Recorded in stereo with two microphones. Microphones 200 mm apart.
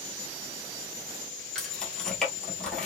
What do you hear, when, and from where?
1.6 s keys jangling: 5° left (ahead or behind), 1.5 m